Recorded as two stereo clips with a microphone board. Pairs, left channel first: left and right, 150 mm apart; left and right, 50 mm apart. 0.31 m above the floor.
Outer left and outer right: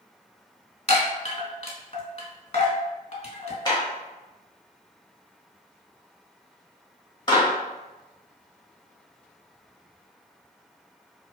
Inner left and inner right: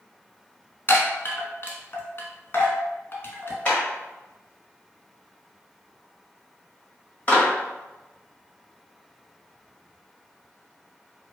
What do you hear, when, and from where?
0.9 s a chime: 45° left (ahead or behind), 0.8 m
3.6 s a clap: 30° left (ahead or behind), 1.3 m